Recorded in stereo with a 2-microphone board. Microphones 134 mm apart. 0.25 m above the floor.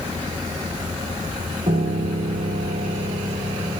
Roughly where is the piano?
Right.